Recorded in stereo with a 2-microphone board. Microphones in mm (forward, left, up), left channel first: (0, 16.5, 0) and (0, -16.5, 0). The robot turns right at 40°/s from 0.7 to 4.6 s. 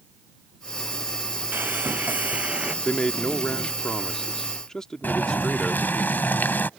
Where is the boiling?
80° left.